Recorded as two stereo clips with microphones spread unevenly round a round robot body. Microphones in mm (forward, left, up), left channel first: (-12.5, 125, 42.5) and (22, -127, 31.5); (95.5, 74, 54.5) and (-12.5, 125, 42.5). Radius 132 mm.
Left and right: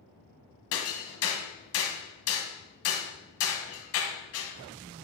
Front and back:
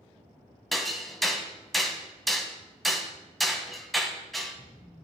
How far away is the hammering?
About 1.6 m.